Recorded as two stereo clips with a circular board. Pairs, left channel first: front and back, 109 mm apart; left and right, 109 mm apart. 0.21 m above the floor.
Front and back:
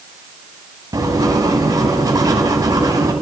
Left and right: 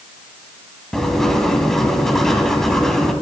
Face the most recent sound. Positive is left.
turn(degrees=175)